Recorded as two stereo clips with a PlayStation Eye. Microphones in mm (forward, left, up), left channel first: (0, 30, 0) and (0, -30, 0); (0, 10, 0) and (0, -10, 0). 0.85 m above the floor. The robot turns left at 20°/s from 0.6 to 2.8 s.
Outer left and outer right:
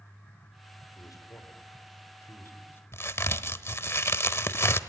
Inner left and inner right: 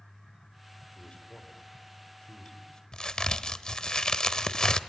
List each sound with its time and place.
0.9 s a man speaking: 75° left (ahead or behind), 3.5 m; by 2.8 s 40° left (ahead or behind), 3.5 m
2.9 s a crack: 45° left (ahead or behind), 0.9 m